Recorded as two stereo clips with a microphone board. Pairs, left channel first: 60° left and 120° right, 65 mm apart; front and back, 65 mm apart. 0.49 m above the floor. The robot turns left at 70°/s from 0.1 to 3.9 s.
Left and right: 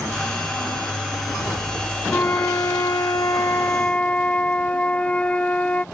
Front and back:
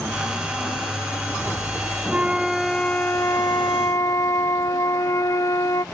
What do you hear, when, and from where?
2.1 s a flute: 120° left; by 5.8 s 5° right